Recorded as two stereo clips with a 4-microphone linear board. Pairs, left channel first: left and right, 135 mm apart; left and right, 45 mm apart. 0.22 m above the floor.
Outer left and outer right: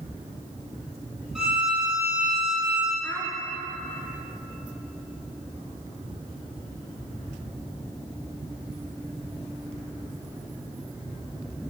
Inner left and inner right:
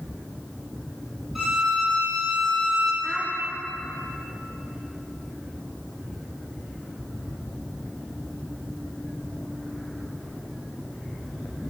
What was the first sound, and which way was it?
A violin, centre (ahead or behind).